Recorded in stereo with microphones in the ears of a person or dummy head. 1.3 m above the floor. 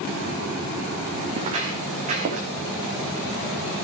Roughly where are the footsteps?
Right.